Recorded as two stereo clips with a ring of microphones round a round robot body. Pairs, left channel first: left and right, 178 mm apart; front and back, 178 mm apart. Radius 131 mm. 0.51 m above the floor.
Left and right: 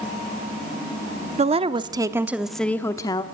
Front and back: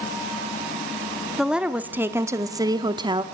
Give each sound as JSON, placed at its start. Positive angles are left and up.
{"t": 1.4, "sound": "a woman speaking", "azimuth_deg": -95, "distance_m": 0.9}